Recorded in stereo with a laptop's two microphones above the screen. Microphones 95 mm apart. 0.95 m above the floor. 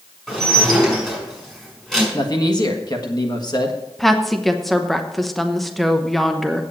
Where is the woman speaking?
Centre (ahead or behind), 0.8 m.